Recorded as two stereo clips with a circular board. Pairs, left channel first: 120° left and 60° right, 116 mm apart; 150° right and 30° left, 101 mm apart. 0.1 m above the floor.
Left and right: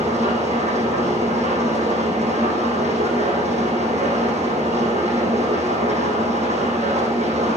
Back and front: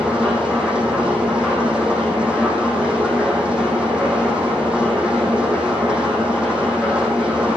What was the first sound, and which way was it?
An engine running, 50° right.